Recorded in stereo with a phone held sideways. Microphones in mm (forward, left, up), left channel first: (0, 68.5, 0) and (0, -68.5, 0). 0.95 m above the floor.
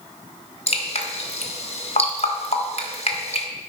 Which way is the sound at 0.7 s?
50° left (ahead or behind).